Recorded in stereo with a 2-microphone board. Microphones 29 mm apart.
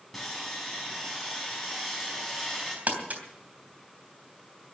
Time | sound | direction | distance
0.1 | sawing | centre (ahead or behind) | 5.5 m
2.9 | crumpling | 60° right (ahead or behind) | 3 m